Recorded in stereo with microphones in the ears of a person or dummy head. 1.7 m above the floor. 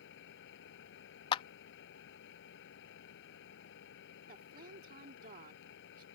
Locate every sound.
0.0 s an engine running: 75° left (ahead or behind)
1.3 s a clap: 35° left (ahead or behind)
4.3 s a woman speaking: 50° right (ahead or behind)